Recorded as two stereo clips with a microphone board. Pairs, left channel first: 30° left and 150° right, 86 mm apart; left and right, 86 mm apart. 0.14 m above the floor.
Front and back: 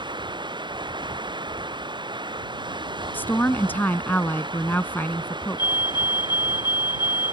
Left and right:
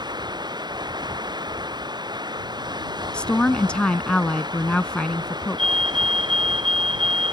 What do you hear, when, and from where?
0.0 s running water: 120° right
3.1 s a woman speaking: 35° left
5.6 s a fire alarm: 10° left